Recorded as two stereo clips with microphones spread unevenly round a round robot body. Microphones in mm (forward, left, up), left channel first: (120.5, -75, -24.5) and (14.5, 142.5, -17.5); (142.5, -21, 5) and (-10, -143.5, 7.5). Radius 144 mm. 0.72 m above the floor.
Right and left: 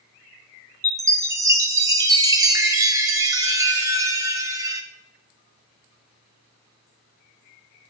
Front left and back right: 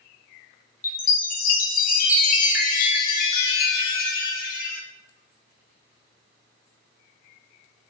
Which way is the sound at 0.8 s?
45° left.